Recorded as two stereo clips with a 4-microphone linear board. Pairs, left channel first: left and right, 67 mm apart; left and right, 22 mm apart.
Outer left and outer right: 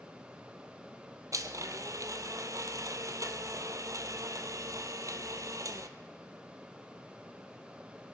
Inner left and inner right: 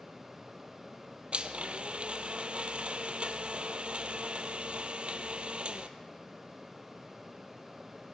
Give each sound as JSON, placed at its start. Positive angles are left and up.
{"t": 1.3, "sound": "a blender", "side_deg": -55, "distance_m": 0.8}